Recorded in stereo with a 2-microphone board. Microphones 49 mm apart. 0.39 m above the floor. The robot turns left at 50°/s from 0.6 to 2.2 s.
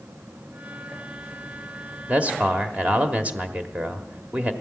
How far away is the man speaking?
About 1.2 m.